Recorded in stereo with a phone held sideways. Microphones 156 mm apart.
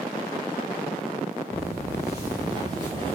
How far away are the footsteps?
About 2 m.